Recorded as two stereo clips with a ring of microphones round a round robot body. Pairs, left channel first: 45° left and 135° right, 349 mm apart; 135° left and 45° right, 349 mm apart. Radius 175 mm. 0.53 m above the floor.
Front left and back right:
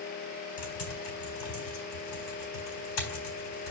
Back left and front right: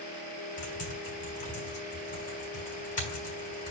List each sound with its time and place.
0.6 s typing on a keyboard: 65° left, 4 m